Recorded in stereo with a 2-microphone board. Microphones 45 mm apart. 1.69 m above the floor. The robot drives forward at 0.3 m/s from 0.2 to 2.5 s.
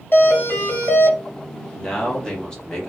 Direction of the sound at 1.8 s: 15° left (ahead or behind).